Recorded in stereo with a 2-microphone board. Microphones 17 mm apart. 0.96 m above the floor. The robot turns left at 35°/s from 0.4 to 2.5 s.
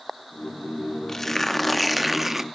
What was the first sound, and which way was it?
Tearing paper, 20° left.